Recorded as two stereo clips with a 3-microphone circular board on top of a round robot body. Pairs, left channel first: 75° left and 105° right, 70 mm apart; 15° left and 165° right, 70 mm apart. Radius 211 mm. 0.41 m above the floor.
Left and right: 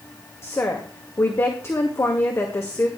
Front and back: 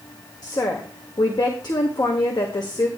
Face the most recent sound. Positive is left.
turn(degrees=25)